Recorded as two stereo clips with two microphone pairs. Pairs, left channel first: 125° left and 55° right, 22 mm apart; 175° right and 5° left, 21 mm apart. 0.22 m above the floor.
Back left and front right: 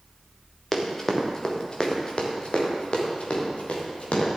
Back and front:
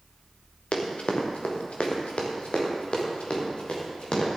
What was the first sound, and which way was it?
Running footsteps, 155° right.